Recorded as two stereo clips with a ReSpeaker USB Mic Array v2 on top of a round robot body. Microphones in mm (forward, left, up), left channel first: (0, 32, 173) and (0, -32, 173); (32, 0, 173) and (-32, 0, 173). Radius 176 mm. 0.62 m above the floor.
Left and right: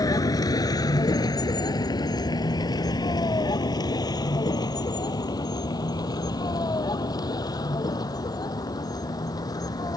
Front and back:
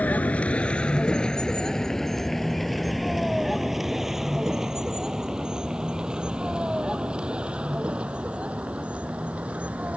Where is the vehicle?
65° left; by 10.0 s 110° left.